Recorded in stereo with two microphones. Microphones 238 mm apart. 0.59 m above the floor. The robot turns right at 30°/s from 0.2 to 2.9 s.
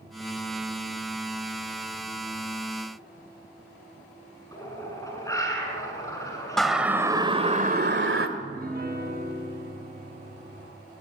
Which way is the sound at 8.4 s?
40° right (ahead or behind).